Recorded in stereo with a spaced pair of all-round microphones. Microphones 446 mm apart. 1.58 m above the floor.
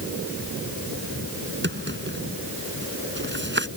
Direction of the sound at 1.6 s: 25° right (ahead or behind).